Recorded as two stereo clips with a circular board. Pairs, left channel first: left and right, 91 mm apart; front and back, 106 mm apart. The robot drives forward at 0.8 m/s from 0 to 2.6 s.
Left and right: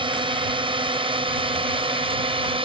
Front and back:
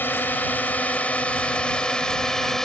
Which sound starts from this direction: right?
A drone, at 0.0 s.